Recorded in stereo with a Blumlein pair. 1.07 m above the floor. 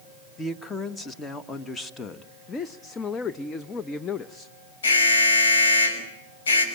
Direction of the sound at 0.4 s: 15° left.